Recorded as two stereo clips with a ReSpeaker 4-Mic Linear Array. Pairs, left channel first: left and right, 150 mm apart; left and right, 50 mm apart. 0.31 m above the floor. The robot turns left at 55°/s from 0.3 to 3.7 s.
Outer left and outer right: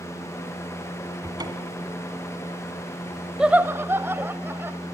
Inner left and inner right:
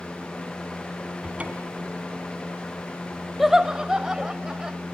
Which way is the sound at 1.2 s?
20° right.